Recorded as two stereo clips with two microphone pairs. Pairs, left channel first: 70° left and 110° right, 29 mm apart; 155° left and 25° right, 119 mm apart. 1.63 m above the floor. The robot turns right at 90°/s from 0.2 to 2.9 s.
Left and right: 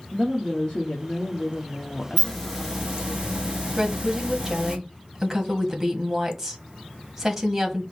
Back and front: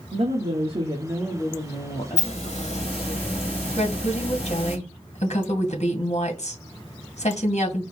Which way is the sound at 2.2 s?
130° left.